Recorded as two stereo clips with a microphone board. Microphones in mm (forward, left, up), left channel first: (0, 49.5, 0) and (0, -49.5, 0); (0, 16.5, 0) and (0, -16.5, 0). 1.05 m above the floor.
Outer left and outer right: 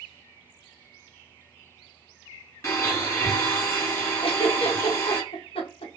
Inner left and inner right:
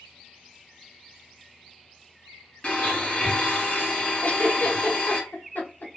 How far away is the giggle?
About 0.9 m.